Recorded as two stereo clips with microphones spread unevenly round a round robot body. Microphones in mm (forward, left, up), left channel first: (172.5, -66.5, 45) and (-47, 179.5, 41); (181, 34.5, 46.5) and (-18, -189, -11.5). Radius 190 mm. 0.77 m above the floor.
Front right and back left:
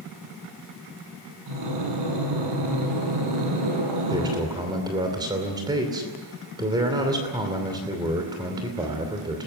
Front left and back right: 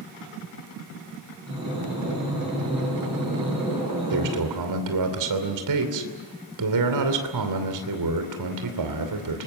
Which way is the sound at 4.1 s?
150° right.